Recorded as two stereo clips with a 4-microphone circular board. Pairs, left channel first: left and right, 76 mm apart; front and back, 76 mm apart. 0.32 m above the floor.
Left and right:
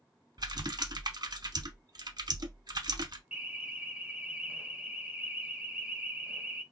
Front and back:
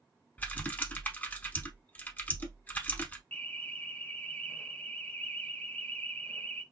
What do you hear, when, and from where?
0.4 s typing on a keyboard: 65° right, 0.6 m
3.3 s an alarm: 40° right, 0.6 m